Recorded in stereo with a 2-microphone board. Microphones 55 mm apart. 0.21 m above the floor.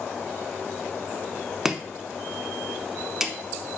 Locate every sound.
1.6 s chopping: 10° right (ahead or behind), 0.6 m